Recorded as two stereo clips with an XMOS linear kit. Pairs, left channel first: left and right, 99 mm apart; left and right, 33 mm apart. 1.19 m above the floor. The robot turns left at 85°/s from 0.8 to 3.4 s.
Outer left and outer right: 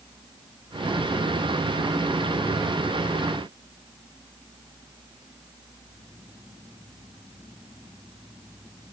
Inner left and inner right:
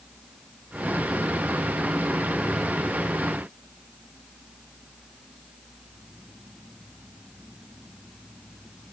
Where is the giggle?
No giggle in this recording.